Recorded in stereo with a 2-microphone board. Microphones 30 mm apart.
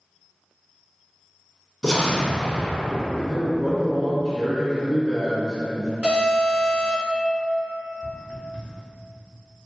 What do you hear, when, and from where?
1.8 s an explosion: 25° left (ahead or behind), 0.5 m
3.2 s a man speaking: 5° right (ahead or behind), 1.4 m
6.0 s an alarm: 35° right (ahead or behind), 1.4 m
8.0 s footsteps: 50° right (ahead or behind), 1.0 m